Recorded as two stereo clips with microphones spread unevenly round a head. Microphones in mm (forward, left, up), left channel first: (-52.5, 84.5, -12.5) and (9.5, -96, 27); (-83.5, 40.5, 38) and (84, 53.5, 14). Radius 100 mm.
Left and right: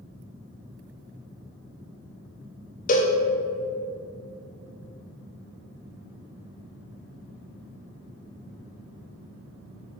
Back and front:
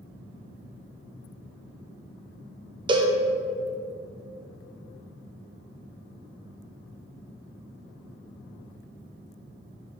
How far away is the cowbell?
About 0.7 m.